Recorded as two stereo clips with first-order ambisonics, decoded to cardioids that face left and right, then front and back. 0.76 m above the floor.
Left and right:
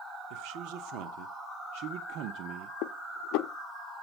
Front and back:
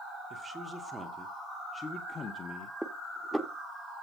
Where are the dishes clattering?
95° left, 0.7 m.